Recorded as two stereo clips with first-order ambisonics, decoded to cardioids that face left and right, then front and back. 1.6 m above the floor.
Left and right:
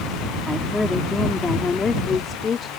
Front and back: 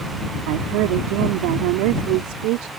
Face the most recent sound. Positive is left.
turn(degrees=155)